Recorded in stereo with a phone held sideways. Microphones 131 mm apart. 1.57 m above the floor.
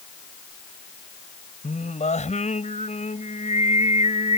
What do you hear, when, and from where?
1.6 s singing: 65° left (ahead or behind)